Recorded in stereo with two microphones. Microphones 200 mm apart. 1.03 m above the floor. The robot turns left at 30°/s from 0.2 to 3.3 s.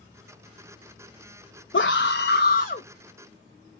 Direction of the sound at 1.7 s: 85° left.